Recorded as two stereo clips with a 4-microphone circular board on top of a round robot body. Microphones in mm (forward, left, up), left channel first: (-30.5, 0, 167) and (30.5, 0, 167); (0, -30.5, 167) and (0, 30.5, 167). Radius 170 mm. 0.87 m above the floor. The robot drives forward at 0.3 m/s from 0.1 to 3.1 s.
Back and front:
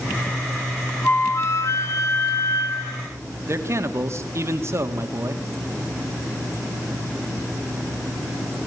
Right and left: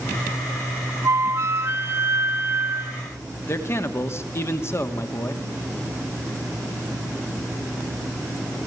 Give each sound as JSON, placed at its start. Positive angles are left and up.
{"t": 1.0, "sound": "a flute", "azimuth_deg": 130, "distance_m": 1.1}
{"t": 3.5, "sound": "a man speaking", "azimuth_deg": -45, "distance_m": 2.5}